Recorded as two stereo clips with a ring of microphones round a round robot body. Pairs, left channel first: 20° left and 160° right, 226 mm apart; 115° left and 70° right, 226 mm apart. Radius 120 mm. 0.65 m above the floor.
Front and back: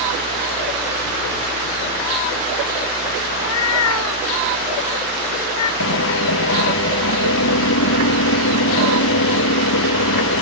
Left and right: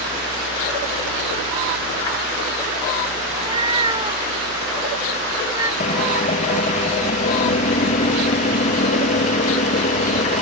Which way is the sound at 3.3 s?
Straight ahead.